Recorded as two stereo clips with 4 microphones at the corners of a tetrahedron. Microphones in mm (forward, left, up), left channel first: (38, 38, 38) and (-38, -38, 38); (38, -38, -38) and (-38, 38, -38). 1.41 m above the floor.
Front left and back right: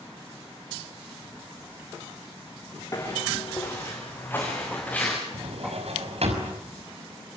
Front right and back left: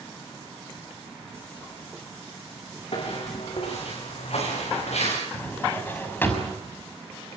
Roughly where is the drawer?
Behind right.